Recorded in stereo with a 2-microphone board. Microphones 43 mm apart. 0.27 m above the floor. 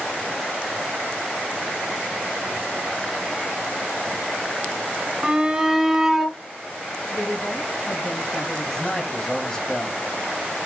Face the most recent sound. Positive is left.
turn(degrees=15)  # may be behind; listen again after turning